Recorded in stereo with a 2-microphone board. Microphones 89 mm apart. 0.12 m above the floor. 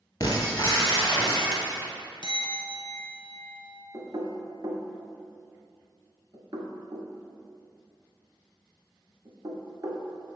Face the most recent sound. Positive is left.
turn(degrees=-50)  # may be behind; listen again after turning